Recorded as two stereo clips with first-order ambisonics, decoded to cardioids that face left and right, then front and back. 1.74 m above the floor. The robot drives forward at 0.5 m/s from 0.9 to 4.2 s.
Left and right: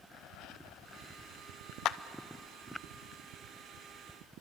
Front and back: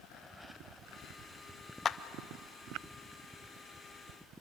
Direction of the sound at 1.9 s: 60° left.